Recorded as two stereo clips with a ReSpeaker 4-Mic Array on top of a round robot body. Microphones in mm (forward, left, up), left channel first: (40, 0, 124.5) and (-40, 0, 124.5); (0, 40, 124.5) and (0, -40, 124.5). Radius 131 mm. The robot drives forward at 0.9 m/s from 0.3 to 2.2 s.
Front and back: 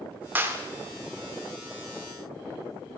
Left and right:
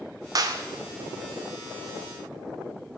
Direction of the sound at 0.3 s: 115° right.